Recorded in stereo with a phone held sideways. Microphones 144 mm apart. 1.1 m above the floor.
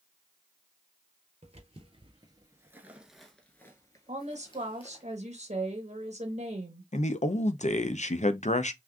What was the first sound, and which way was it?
Footsteps, 50° right (ahead or behind).